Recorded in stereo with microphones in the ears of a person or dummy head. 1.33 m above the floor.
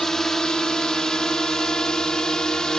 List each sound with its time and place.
0.0 s a drone: 5° left (ahead or behind)